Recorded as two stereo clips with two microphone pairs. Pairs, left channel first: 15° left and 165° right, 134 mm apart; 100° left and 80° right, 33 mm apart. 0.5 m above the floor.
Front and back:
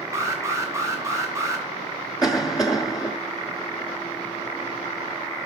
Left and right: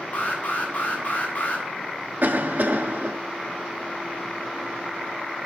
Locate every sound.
0.1 s an alarm: 130° left, 3 m
2.2 s a cough: 45° right, 1.6 m